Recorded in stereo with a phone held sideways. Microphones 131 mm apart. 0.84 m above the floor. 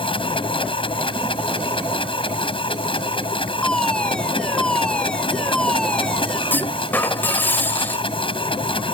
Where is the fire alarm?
5° left (ahead or behind).